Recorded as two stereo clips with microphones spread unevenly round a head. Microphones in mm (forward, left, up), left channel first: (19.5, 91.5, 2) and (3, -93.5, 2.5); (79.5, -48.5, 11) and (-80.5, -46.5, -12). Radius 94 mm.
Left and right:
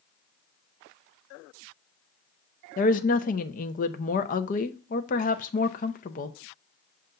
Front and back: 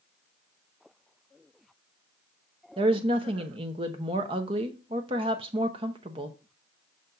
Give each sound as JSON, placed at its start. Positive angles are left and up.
{"t": 2.8, "sound": "a woman speaking", "azimuth_deg": 125, "distance_m": 0.6}